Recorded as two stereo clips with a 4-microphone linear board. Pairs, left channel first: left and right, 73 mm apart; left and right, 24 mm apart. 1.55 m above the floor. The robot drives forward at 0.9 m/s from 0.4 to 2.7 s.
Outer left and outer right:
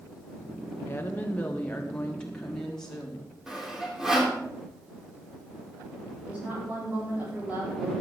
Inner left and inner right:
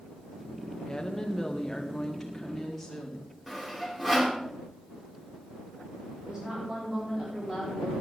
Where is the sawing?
5° right (ahead or behind), 3 m.